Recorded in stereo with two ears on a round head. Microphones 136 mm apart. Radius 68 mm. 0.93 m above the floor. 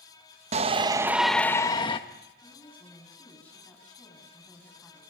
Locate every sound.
0.5 s a shout: 45° right (ahead or behind), 1.0 m; by 2.0 s 35° left (ahead or behind), 1.2 m
2.4 s a woman speaking: 10° left (ahead or behind), 6.5 m